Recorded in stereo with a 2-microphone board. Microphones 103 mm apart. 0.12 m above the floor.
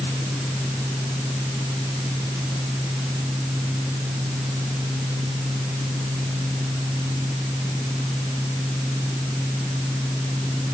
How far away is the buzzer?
No buzzer in this recording.